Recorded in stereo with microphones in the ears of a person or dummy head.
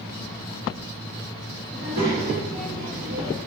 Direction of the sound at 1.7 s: 45° right (ahead or behind).